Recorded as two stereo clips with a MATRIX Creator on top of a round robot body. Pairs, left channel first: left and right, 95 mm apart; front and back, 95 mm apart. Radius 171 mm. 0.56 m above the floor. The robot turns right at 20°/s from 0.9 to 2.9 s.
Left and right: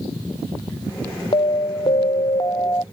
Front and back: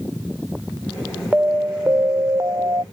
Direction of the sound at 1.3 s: 105° left.